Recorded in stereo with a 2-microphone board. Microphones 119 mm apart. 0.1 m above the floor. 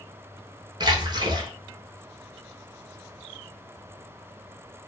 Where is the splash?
40° right (ahead or behind), 0.8 m.